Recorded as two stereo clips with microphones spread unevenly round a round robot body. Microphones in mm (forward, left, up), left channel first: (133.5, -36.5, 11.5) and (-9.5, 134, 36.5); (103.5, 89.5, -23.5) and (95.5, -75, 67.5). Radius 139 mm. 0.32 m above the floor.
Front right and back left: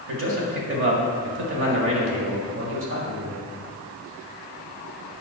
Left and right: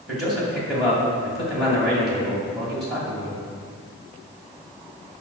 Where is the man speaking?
150° left, 2 m.